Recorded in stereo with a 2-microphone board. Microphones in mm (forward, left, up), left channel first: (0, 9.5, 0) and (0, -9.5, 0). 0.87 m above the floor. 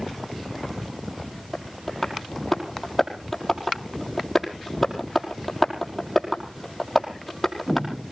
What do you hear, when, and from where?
1.5 s tapping: 10° left (ahead or behind), 5 m